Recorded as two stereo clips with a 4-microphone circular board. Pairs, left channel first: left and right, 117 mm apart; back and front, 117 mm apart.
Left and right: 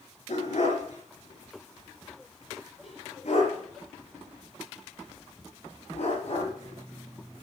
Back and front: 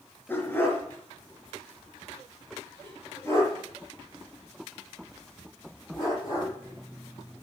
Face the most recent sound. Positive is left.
turn(degrees=110)